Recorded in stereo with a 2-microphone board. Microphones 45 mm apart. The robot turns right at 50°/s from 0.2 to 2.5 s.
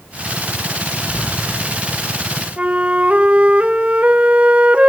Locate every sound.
1.0 s a door slam: 30° left (ahead or behind), 5 m; by 2.1 s 85° left, 5 m
2.6 s a flute: 30° right (ahead or behind), 0.6 m